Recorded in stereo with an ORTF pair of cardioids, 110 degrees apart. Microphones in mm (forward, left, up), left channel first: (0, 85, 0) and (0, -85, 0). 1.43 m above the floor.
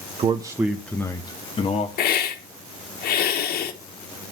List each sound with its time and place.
0.2 s a man speaking: 35° right, 1.0 m; by 1.9 s 35° left, 1.9 m
2.0 s a hiss: 65° left, 1.8 m